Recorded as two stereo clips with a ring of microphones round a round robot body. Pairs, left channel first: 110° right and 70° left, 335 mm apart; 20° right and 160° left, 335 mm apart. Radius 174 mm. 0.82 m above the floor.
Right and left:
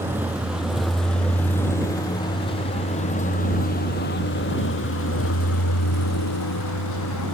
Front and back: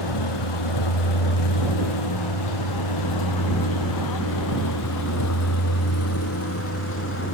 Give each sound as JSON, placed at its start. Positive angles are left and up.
{"t": 0.0, "sound": "a vehicle", "azimuth_deg": -15}